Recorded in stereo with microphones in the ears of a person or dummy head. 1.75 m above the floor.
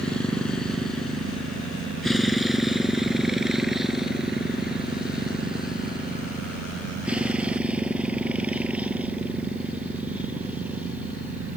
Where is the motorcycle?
5° left (ahead or behind); by 11.6 s 10° right (ahead or behind).